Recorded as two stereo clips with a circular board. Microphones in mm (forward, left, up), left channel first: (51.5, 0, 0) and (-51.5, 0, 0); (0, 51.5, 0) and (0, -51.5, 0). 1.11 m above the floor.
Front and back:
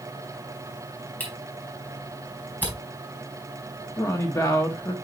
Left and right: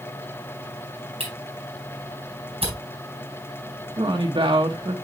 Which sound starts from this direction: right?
A camera shutter, at 1.2 s.